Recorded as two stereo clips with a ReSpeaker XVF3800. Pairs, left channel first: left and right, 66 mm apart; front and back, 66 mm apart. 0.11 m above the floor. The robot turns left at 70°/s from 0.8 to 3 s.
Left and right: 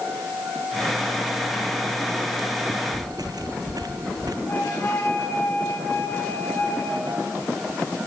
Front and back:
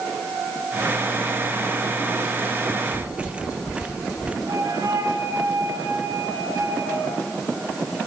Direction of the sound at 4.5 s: 145° left.